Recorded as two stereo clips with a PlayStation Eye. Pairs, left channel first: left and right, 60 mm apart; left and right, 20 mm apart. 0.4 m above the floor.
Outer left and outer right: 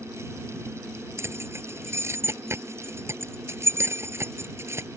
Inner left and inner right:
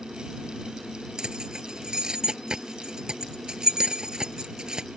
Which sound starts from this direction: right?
Keys jangling, at 1.2 s.